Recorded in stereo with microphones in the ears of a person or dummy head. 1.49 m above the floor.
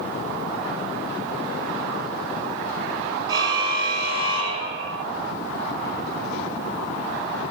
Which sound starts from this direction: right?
A car horn, at 3.3 s.